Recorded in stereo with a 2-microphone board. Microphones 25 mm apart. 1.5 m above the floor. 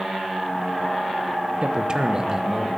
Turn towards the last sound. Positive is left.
turn(degrees=-25)  # may be behind; listen again after turning